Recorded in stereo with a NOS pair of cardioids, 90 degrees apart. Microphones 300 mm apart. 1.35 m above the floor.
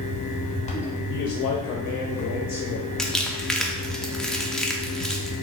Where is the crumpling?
Straight ahead, 0.5 m.